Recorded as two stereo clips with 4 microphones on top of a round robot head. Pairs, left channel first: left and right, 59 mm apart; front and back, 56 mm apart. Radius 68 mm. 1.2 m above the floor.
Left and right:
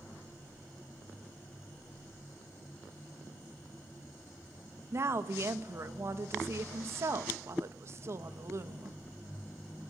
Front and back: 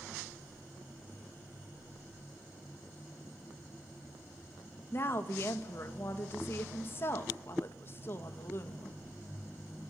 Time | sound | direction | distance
4.9 | a woman speaking | 50° right | 1.9 m